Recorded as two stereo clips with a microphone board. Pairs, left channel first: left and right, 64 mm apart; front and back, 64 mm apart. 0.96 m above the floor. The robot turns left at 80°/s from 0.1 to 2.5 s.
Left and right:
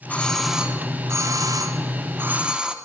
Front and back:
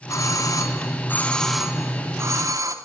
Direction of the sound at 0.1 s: 25° left.